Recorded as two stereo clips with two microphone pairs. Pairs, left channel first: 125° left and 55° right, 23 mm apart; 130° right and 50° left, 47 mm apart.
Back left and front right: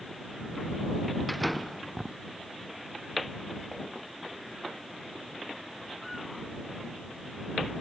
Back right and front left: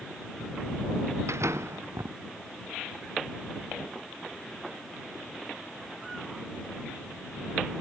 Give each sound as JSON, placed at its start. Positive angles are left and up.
{"t": 1.3, "sound": "a door slam", "azimuth_deg": 40}